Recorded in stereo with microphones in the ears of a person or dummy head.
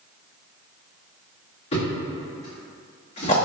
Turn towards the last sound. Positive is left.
turn(degrees=35)  # may be behind; listen again after turning